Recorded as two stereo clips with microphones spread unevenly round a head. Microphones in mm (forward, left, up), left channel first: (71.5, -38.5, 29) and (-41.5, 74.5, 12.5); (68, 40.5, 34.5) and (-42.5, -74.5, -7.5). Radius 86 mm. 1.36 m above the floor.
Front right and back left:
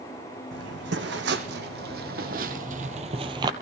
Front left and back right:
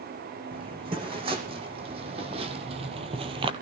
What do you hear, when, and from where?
0.5 s footsteps: 160° left, 3.5 m; by 3.5 s 175° left, 1.4 m